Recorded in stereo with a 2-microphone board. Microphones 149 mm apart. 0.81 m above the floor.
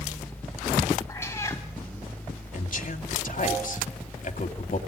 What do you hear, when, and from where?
1.1 s a cat meowing: 20° left (ahead or behind), 3 m
2.5 s a man speaking: 60° left (ahead or behind), 2 m